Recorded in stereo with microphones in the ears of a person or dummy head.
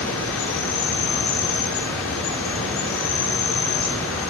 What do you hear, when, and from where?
0.0 s an insect: 75° left (ahead or behind), 4.5 m